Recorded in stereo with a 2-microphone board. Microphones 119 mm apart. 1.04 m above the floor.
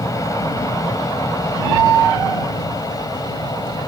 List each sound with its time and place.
0.0 s an aircraft: 30° left (ahead or behind); by 3.9 s 35° left (ahead or behind)